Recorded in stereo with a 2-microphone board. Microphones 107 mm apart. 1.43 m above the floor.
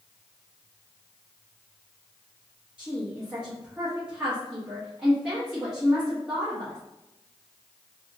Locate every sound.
2.8 s a woman speaking: 10° right (ahead or behind), 0.8 m